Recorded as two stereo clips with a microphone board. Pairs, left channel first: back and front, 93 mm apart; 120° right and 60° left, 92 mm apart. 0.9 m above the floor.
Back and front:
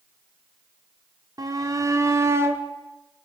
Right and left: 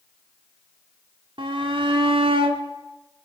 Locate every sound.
1.4 s a shout: 45° left, 3 m; by 2.6 s 65° left, 2.5 m